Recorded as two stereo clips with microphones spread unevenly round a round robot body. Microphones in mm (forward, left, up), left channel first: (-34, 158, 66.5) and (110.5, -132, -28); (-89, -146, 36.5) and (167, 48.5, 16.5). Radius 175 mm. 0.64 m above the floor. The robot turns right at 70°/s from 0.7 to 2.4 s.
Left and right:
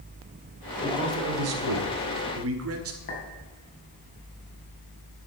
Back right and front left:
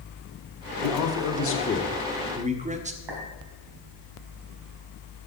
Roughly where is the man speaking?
Behind right.